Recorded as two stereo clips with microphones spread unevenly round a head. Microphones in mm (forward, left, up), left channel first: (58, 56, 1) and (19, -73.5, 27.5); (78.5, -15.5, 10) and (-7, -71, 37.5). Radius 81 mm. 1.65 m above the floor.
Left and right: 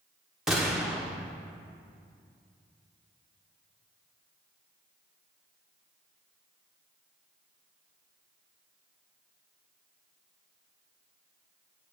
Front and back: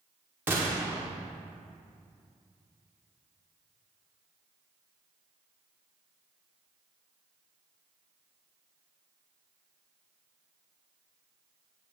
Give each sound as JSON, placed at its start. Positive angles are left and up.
{"t": 0.5, "sound": "a gunshot", "azimuth_deg": -170, "distance_m": 1.4}